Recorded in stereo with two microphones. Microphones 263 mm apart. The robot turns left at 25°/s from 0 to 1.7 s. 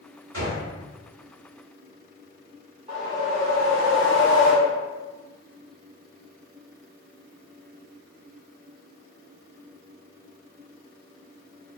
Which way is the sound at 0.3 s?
75° right (ahead or behind).